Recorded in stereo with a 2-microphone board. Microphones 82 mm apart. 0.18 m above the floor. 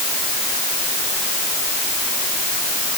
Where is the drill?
I don't hear a drill.